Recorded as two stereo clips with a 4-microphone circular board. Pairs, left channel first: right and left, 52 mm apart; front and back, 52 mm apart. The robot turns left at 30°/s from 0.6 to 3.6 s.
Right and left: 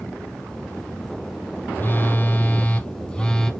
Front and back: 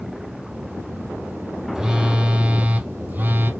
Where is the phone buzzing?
110° right, 0.9 m; by 3.5 s 160° right, 0.9 m.